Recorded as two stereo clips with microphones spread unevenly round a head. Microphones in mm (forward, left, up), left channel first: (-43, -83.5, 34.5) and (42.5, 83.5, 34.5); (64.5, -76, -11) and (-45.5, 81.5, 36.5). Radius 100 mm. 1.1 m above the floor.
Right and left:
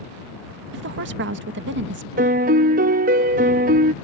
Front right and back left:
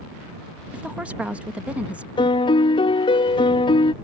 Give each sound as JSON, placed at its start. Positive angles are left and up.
{"t": 0.7, "sound": "a woman speaking", "azimuth_deg": 40}
{"t": 2.2, "sound": "a piano", "azimuth_deg": 15}